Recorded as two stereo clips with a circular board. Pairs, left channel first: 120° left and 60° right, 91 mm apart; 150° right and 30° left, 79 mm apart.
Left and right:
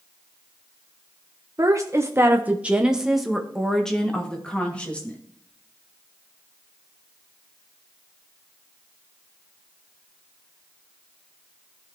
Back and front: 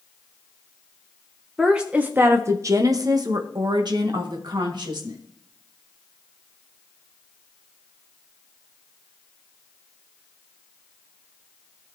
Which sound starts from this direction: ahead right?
A woman speaking, at 1.6 s.